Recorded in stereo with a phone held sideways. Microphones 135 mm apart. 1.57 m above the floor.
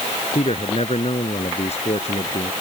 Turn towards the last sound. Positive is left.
turn(degrees=55)  # may be behind; listen again after turning